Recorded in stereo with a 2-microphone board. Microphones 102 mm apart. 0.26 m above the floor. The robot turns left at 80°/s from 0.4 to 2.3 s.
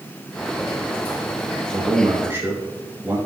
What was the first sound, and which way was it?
A man speaking, 105° right.